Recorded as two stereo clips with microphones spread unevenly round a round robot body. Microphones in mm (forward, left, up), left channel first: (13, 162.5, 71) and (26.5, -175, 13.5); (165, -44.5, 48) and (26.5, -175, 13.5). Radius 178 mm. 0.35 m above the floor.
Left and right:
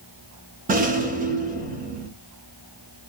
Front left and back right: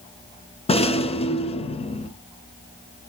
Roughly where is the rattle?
Ahead right.